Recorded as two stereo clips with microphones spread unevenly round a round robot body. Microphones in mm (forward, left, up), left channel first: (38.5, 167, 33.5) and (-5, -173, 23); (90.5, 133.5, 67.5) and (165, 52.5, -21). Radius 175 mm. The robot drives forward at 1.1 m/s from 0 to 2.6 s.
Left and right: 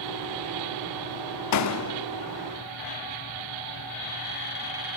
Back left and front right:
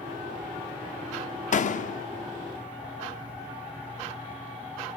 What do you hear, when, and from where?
1.5 s a door slam: 120° left, 1.3 m; by 2.1 s 140° left, 1.7 m